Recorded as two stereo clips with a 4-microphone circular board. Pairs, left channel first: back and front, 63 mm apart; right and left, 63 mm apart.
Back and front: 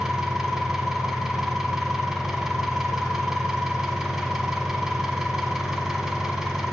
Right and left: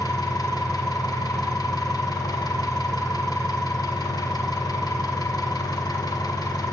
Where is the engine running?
85° right, 1.0 m.